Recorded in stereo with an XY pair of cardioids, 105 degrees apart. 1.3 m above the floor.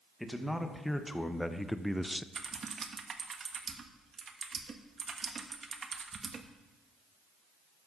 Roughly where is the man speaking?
Ahead.